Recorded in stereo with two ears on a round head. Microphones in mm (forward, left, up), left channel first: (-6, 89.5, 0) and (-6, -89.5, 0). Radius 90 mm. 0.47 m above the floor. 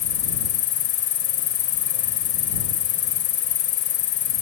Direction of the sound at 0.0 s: 60° left (ahead or behind).